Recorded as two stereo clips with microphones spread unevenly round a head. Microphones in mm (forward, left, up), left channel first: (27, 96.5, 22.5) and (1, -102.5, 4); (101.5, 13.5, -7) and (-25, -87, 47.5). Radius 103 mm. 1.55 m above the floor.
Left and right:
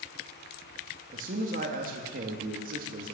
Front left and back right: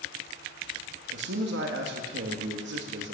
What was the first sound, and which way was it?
A man speaking, 150° right.